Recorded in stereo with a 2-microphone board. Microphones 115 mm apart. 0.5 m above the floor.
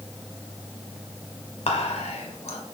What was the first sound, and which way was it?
Whispering, 60° left (ahead or behind).